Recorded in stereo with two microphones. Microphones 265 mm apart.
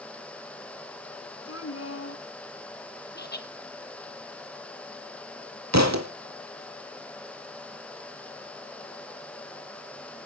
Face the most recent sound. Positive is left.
turn(degrees=-75)  # may be behind; listen again after turning